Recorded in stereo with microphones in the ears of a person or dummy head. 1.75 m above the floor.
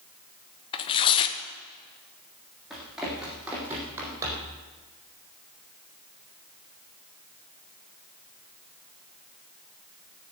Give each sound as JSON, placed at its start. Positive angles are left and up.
{"t": 0.7, "sound": "tearing paper", "side_deg": 20, "distance_m": 1.1}
{"t": 2.7, "sound": "running footsteps", "side_deg": -10, "distance_m": 5.0}